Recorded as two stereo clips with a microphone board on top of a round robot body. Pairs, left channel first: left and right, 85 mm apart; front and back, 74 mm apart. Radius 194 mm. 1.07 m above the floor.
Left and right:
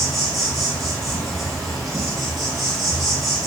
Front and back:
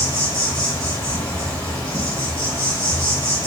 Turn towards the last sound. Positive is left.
turn(degrees=0)